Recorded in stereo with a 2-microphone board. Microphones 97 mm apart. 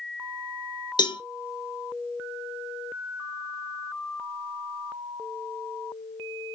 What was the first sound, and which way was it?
A cowbell, 50° left (ahead or behind).